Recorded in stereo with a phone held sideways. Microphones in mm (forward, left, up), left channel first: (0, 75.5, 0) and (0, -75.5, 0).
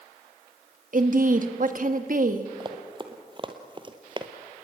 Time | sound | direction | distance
0.9 | a woman speaking | 60° right (ahead or behind) | 1.8 m
2.6 | running footsteps | 30° right (ahead or behind) | 2 m